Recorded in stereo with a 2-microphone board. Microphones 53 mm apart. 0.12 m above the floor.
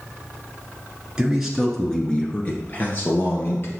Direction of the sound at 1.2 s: 15° right (ahead or behind).